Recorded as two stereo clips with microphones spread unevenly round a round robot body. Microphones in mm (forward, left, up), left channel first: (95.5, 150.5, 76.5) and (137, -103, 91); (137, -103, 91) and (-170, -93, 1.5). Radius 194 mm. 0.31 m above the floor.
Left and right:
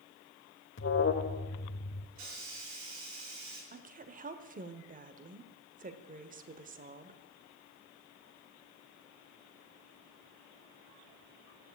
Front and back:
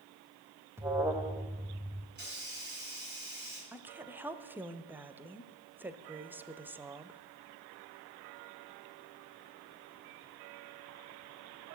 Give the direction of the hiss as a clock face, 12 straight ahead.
4 o'clock.